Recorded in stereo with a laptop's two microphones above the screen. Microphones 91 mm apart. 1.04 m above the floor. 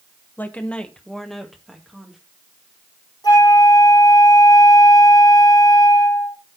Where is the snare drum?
No snare drum in this recording.